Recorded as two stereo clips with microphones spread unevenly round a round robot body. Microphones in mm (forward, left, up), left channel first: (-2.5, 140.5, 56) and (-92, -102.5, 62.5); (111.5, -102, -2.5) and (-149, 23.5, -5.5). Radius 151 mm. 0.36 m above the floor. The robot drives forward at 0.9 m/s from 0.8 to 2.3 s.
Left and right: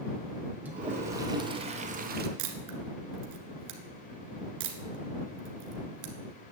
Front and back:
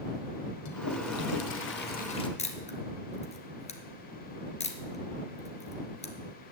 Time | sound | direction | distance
0.7 | a toilet flushing | 25° right | 1.7 m
2.4 | a camera shutter | 95° right | 1.6 m